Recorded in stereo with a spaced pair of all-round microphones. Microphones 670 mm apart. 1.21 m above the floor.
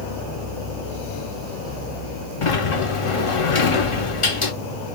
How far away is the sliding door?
About 0.6 m.